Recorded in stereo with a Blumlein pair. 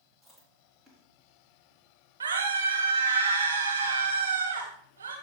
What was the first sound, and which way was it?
Chewing, 10° right.